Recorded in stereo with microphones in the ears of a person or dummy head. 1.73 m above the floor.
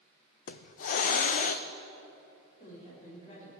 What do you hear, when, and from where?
0.5 s a hiss: 45° left (ahead or behind), 0.5 m
2.6 s a woman speaking: 40° left (ahead or behind), 5.5 m